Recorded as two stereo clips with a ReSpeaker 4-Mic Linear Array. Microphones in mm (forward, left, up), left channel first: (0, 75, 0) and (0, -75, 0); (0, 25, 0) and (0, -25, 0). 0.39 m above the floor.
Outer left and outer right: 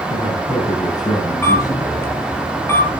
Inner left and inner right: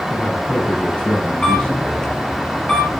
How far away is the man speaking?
About 5.5 m.